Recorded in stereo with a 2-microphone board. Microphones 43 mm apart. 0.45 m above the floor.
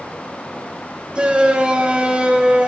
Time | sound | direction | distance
1.1 | a shout | 20° right (ahead or behind) | 2.5 m